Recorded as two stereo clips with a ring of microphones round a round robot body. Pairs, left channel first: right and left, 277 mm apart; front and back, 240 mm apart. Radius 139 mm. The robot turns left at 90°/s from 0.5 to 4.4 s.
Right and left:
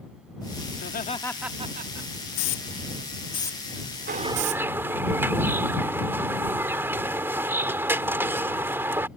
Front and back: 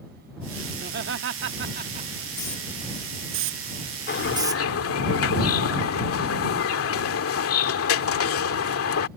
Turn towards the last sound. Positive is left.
turn(degrees=10)